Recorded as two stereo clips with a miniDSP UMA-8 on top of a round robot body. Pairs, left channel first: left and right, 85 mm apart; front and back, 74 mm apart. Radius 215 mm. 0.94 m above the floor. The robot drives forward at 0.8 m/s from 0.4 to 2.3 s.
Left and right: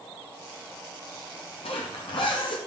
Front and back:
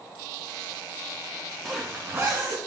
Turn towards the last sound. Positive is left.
turn(degrees=120)